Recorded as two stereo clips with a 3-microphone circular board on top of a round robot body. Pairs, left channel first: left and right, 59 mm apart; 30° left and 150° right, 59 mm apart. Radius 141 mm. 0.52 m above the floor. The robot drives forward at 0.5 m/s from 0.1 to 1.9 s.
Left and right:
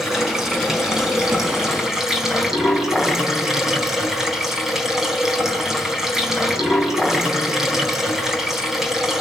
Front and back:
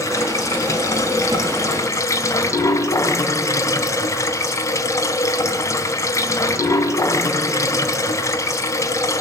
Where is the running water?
5° right, 5 m.